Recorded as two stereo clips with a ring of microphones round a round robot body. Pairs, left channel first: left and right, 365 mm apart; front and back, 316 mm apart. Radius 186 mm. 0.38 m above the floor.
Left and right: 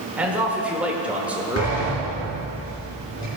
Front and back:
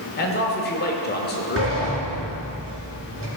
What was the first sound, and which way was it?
A man speaking, 5° right.